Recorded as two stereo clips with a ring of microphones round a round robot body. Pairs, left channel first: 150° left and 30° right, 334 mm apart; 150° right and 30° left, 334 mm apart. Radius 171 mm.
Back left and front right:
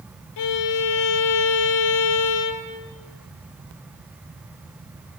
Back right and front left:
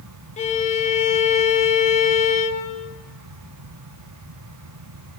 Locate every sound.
0.4 s a violin: 140° left, 1.8 m